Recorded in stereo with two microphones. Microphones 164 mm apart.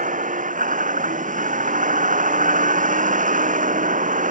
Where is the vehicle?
55° right (ahead or behind).